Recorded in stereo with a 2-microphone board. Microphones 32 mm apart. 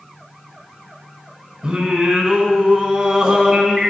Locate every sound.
1.6 s singing: 20° right (ahead or behind), 3 m